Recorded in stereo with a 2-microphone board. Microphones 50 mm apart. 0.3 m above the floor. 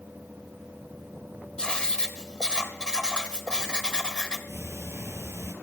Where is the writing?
15° left (ahead or behind), 1.0 m.